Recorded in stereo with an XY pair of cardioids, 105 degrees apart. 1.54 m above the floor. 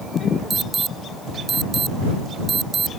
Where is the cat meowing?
I don't hear a cat meowing.